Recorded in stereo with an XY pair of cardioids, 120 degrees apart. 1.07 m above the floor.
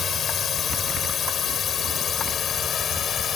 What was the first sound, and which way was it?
A drone, 45° left.